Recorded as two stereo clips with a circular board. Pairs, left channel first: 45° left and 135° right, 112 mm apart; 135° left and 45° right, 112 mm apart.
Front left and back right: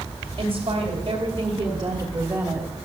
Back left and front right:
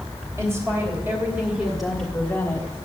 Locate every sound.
0.4 s a woman speaking: 100° right, 2.5 m; by 2.7 s 155° left, 1.4 m